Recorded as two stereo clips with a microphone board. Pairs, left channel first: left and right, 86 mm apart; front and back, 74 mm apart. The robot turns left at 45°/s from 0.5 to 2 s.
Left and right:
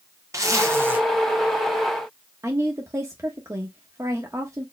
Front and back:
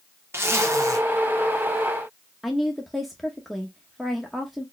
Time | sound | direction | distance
0.3 | a zipper | 130° right | 1.0 m
2.4 | a woman speaking | 90° right | 1.0 m